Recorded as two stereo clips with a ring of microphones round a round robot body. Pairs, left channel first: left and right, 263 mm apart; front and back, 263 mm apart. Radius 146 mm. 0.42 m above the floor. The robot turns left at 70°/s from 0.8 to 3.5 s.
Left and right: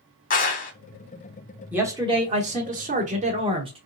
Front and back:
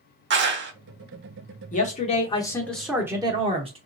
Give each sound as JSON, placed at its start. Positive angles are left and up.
{"t": 0.3, "sound": "a clap", "azimuth_deg": 145, "distance_m": 0.9}
{"t": 1.7, "sound": "a man speaking", "azimuth_deg": -10, "distance_m": 1.0}